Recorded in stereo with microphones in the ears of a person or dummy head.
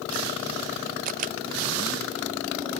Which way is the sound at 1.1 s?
50° right (ahead or behind).